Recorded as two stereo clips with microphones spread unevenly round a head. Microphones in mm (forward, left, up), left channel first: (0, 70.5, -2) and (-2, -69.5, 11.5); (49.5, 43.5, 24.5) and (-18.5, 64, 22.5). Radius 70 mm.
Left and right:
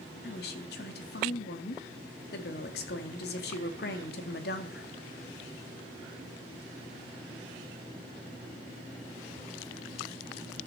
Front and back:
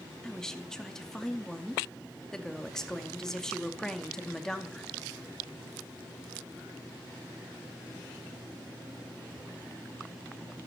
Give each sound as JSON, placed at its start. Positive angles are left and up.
{"t": 0.2, "sound": "a woman speaking", "azimuth_deg": 65, "distance_m": 2.5}